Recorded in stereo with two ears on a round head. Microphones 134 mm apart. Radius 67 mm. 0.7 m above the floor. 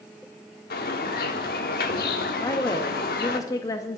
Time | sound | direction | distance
0.7 | a bird | 75° left (ahead or behind) | 1.1 m
2.4 | a woman speaking | 25° left (ahead or behind) | 0.7 m